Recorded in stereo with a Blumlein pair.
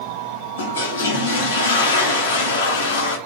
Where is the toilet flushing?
60° left, 1.0 m.